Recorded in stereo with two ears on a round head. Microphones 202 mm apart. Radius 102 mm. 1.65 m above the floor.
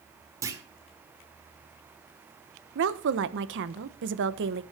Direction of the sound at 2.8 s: 60° right (ahead or behind).